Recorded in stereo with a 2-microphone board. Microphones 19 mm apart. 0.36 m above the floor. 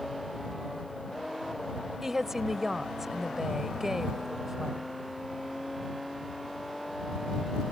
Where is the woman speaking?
20° right (ahead or behind).